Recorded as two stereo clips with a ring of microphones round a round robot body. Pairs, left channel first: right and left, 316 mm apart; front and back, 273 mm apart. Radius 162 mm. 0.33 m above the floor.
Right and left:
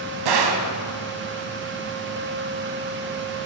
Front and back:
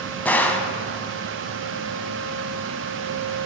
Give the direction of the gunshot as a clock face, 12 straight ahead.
9 o'clock.